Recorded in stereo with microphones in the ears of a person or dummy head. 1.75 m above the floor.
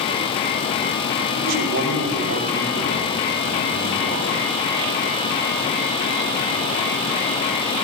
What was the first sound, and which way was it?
A man speaking, 80° right.